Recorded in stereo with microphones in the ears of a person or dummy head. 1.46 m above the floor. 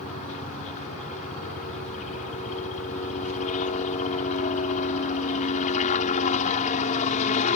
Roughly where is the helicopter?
Left.